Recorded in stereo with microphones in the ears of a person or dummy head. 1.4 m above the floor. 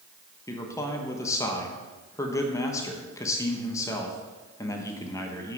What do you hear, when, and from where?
0.5 s a man speaking: 15° left (ahead or behind), 1.3 m